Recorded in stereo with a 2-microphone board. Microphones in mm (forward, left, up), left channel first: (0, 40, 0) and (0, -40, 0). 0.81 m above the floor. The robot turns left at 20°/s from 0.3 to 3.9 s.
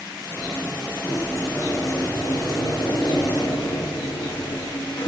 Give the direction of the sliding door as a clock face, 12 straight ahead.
6 o'clock.